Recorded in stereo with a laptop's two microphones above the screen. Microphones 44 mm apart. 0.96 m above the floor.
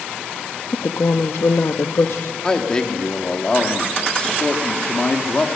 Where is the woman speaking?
75° left (ahead or behind), 1.1 m.